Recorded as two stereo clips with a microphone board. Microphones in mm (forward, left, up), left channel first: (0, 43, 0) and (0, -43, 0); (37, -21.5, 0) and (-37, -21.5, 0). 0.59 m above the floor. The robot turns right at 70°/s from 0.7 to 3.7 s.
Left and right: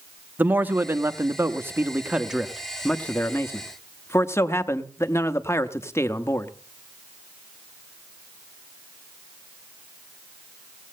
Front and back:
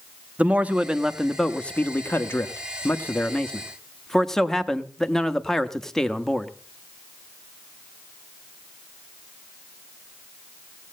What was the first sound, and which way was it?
A man speaking, 130° right.